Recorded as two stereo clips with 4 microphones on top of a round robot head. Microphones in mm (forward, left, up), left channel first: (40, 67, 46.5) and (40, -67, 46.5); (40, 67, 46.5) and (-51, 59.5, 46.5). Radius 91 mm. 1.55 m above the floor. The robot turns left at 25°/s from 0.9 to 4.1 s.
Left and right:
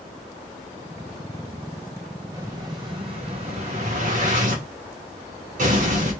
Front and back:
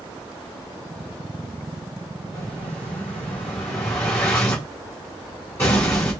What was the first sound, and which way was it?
An explosion, 25° right.